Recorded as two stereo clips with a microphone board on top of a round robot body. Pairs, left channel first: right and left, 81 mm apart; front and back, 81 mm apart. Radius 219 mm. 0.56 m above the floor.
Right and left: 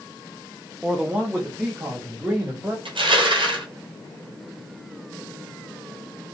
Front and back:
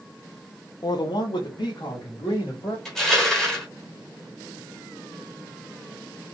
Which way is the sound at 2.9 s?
85° left.